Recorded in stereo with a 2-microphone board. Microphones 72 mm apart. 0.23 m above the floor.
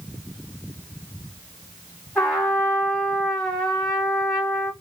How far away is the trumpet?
About 1.5 m.